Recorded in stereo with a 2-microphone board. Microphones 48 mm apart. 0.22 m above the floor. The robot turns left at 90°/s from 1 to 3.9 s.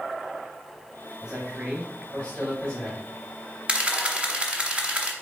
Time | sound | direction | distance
1.2 | a man speaking | 15° right (ahead or behind) | 1.1 m
3.7 | a camera shutter | 20° right (ahead or behind) | 0.7 m